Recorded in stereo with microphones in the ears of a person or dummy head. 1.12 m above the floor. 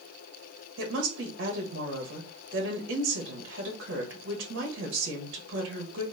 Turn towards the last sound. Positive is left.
turn(degrees=-65)  # may be behind; listen again after turning